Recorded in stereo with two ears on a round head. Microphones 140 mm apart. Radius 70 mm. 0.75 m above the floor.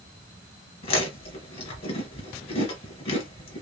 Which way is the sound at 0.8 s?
40° left (ahead or behind).